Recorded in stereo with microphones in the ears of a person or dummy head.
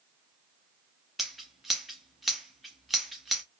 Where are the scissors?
Centre (ahead or behind), 0.6 m.